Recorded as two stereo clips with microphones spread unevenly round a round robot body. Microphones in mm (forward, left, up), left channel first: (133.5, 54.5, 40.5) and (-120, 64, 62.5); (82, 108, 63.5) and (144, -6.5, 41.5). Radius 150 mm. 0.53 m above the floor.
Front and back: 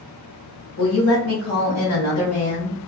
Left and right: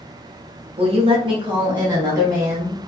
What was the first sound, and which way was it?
A woman speaking, 30° right.